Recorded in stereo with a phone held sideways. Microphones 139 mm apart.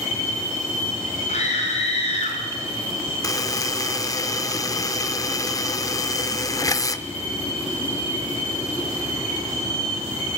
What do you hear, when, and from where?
1.3 s a scream: 60° left (ahead or behind), 6 m; by 2.4 s 55° left (ahead or behind), 6 m
3.2 s a buzzer: 25° left (ahead or behind), 0.8 m